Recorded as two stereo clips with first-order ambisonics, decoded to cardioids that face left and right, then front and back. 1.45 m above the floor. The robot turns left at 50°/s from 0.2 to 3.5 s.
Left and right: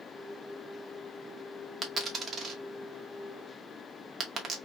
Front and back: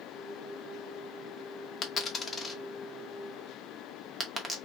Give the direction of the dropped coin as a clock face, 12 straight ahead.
1 o'clock.